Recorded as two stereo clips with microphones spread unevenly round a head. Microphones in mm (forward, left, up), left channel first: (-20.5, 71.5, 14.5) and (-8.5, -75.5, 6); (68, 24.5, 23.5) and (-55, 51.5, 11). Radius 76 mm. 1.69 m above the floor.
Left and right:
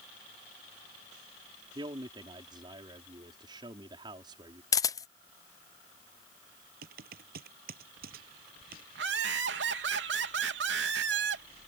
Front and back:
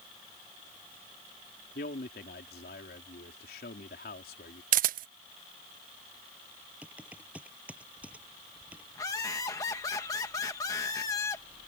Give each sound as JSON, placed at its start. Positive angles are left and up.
{"t": 1.8, "sound": "a man speaking", "azimuth_deg": -20}
{"t": 4.7, "sound": "a camera shutter", "azimuth_deg": 160}
{"t": 6.8, "sound": "typing on a keyboard", "azimuth_deg": -110}
{"t": 8.9, "sound": "laughter", "azimuth_deg": -85}